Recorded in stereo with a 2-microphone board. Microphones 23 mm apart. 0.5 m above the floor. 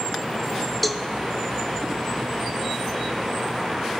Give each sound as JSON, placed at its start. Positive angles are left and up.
{"t": 0.8, "sound": "a cowbell", "side_deg": 5, "distance_m": 1.2}